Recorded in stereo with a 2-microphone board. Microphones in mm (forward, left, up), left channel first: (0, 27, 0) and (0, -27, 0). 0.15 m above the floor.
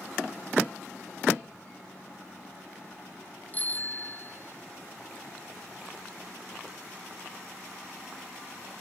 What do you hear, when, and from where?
3.5 s a bicycle bell: 30° left (ahead or behind); by 4.6 s 45° left (ahead or behind)